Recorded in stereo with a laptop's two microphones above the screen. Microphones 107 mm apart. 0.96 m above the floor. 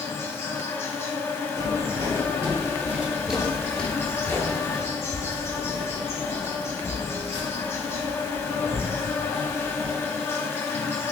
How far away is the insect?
About 1.0 m.